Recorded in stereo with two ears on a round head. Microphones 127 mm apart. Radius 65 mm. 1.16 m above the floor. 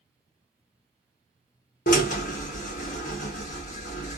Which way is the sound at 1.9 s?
55° left (ahead or behind).